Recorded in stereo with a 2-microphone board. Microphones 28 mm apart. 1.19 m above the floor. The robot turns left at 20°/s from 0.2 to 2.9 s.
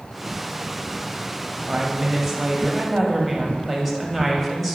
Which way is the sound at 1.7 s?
15° right (ahead or behind).